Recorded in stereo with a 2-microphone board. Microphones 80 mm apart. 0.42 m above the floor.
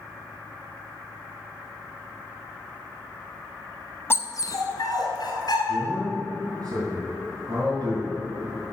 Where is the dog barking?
30° left (ahead or behind), 0.6 m; by 5.6 s 65° left (ahead or behind), 2 m.